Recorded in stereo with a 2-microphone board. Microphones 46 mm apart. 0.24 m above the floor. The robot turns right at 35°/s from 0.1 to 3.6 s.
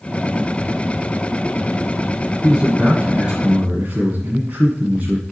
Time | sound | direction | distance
2.4 | a man speaking | 175° left | 1.8 m